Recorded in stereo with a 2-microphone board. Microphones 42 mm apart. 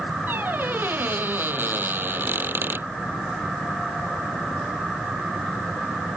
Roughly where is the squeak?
Right.